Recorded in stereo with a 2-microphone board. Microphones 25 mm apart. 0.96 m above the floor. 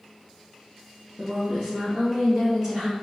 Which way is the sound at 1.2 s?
Centre (ahead or behind).